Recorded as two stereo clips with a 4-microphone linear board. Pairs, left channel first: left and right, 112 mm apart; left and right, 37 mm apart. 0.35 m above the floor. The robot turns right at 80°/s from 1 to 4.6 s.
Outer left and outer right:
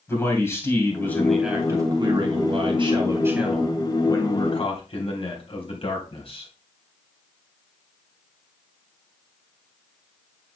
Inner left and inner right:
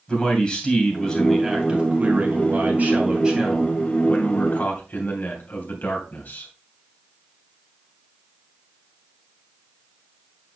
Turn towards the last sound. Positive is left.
turn(degrees=80)